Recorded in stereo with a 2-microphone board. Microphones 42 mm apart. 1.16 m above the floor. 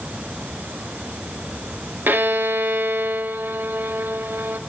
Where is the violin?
55° right (ahead or behind), 0.6 m.